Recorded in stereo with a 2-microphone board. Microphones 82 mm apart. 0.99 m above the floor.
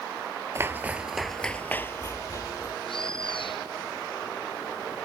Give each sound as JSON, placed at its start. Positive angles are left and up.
{"t": 0.6, "sound": "footsteps", "side_deg": -30}
{"t": 2.9, "sound": "a bird", "side_deg": 75}